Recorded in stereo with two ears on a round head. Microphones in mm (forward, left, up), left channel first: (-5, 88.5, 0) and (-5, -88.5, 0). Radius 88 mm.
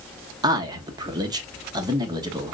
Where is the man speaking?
20° right (ahead or behind), 0.8 m.